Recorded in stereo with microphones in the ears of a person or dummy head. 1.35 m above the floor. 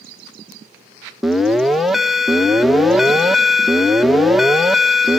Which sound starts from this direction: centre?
An alarm, at 1.2 s.